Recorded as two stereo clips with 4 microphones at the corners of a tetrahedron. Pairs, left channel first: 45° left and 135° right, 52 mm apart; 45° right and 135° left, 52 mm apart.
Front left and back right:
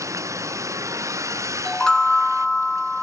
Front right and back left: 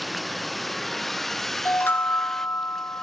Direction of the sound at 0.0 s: 135° right.